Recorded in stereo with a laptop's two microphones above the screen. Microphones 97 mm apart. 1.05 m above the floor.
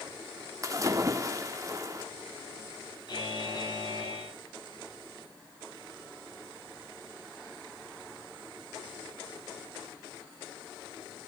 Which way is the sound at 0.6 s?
35° right (ahead or behind).